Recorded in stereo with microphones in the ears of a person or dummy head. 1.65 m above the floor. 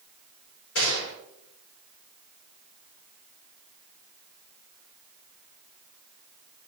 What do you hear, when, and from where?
0.8 s a gunshot: 80° left, 4.5 m